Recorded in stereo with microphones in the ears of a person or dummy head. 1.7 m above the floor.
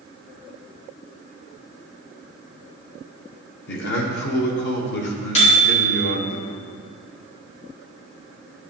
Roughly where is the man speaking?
Left.